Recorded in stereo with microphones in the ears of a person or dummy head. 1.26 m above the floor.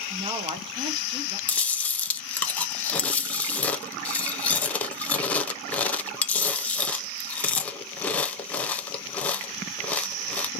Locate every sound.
0.1 s a woman speaking: 25° right (ahead or behind), 0.9 m
1.5 s chewing: 10° left (ahead or behind), 0.5 m